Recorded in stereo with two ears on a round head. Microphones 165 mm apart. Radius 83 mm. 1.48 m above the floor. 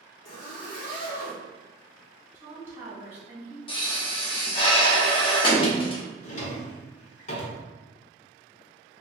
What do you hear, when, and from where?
0.2 s a zipper: 60° left (ahead or behind), 1.2 m
2.4 s a woman speaking: 15° right (ahead or behind), 1.9 m
3.7 s a pop: 30° left (ahead or behind), 0.6 m
6.2 s a drawer: 40° left (ahead or behind), 0.7 m